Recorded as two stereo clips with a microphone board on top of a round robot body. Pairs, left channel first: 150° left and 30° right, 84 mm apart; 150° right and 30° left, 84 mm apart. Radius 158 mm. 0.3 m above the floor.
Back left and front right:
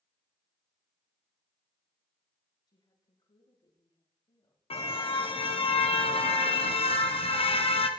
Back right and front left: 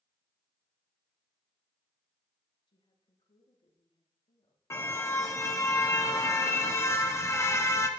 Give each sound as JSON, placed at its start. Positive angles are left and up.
{"t": 2.7, "sound": "a woman speaking", "azimuth_deg": -170, "distance_m": 9.0}
{"t": 4.7, "sound": "a car horn", "azimuth_deg": 150, "distance_m": 2.5}